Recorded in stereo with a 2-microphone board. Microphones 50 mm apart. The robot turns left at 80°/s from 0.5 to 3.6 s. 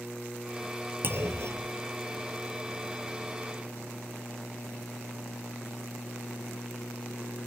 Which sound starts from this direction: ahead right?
A clunk, at 1.0 s.